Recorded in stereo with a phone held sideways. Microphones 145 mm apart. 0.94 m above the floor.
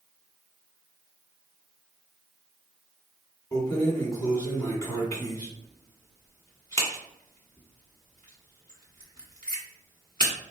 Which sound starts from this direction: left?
Keys jangling, at 3.5 s.